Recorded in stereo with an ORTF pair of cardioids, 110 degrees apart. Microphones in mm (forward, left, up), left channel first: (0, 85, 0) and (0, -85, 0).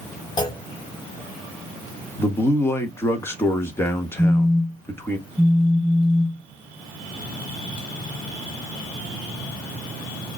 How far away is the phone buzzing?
About 1.7 m.